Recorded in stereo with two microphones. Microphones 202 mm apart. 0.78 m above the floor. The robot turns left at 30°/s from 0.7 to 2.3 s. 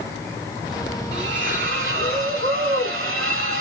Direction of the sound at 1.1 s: 55° right.